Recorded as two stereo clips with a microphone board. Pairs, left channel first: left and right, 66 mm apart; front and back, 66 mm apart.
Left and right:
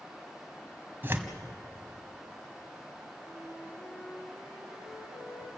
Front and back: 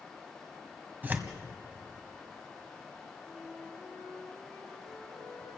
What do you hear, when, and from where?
1.0 s tearing paper: 125° right, 1.6 m
3.2 s a flute: 85° left, 8 m